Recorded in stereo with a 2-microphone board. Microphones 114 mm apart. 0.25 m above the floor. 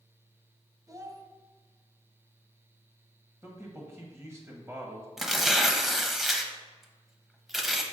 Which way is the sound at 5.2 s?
Centre (ahead or behind).